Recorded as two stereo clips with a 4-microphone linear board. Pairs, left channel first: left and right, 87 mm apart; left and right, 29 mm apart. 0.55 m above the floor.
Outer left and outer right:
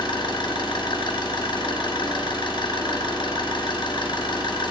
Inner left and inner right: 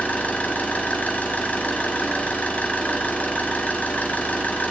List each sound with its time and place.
0.0 s an engine running: 80° left, 2 m